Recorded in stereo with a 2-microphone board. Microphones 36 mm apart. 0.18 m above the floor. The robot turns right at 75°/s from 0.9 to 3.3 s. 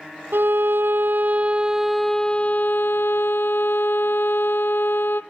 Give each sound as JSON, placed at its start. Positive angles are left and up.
{"t": 0.3, "sound": "a violin", "azimuth_deg": -80, "distance_m": 0.9}